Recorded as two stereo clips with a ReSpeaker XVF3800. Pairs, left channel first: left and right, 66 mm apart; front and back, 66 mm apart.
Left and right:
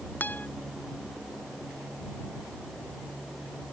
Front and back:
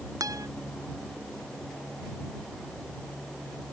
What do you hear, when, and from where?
0.2 s a guitar: 155° left